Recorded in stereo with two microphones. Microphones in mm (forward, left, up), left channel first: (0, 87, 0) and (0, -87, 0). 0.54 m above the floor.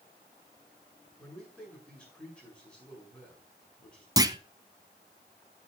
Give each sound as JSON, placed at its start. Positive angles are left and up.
{"t": 1.2, "sound": "a man speaking", "side_deg": 10, "distance_m": 6.5}
{"t": 4.2, "sound": "a clunk", "side_deg": -20, "distance_m": 0.6}